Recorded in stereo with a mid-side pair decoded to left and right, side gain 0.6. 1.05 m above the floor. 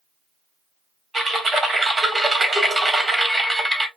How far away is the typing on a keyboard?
About 1.6 m.